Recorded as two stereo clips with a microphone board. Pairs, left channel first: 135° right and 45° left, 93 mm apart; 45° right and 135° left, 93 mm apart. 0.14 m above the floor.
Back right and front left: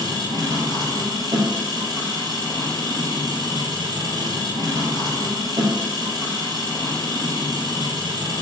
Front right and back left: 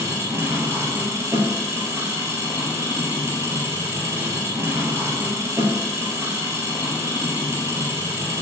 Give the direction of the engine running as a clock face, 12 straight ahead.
9 o'clock.